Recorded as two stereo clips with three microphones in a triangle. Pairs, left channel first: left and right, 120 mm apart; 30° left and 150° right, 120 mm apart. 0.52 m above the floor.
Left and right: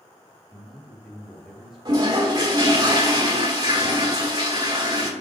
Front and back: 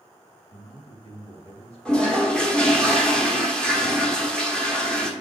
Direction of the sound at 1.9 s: 50° right.